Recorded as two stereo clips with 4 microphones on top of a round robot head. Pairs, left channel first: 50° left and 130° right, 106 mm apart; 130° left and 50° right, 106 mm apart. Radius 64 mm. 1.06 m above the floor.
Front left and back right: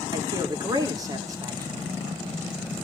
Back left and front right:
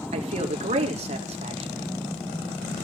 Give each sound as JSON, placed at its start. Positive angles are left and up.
{"t": 0.1, "sound": "a man speaking", "azimuth_deg": -70, "distance_m": 3.5}